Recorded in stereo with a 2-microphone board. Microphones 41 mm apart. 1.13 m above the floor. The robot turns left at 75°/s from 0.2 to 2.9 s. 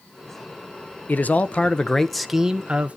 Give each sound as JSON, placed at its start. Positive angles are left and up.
{"t": 1.1, "sound": "a man speaking", "azimuth_deg": 80, "distance_m": 0.7}